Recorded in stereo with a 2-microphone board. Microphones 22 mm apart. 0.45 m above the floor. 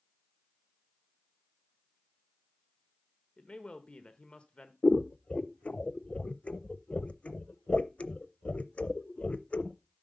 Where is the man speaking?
50° left (ahead or behind), 1.1 m.